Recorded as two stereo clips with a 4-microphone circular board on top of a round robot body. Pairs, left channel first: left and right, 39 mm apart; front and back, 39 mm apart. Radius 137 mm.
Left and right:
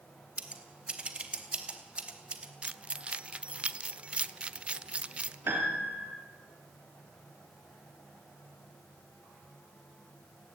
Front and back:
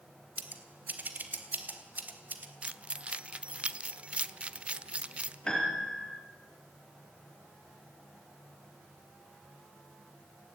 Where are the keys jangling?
135° right, 1.1 m.